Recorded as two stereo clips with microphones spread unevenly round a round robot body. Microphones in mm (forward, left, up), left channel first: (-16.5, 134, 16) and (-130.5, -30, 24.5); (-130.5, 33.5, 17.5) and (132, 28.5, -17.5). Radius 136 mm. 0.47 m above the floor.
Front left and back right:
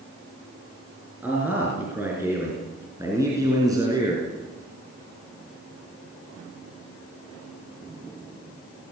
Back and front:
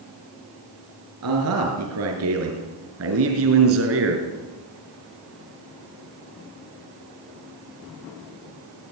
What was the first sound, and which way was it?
A man speaking, 40° right.